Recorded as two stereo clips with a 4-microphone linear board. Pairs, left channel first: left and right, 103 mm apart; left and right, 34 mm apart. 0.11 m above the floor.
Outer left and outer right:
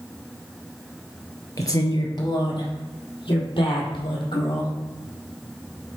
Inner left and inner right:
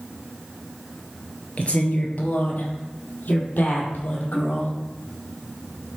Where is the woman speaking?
35° left (ahead or behind), 2 m; by 4.7 s 55° left (ahead or behind), 5 m.